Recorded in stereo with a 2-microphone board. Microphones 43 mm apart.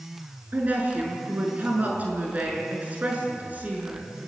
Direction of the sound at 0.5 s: 40° right (ahead or behind).